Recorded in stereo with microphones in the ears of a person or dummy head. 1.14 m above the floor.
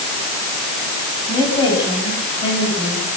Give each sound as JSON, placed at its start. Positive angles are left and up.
{"t": 1.3, "sound": "a woman speaking", "side_deg": 25, "distance_m": 8.5}